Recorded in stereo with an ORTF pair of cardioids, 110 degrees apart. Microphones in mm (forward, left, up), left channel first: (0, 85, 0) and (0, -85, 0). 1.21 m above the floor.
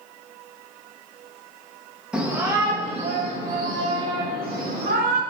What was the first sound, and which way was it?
A shout, 5° right.